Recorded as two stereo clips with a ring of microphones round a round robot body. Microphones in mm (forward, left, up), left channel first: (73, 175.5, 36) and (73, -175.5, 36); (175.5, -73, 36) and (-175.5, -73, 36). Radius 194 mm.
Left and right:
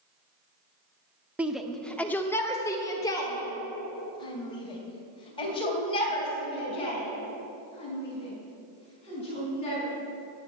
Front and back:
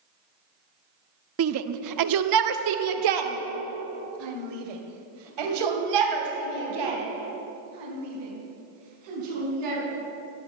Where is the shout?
175° right, 0.7 m; by 9.8 s 165° left, 5.5 m.